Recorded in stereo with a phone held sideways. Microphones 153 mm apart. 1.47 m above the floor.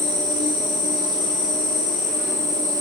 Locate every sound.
0.0 s an insect: 55° left (ahead or behind), 4 m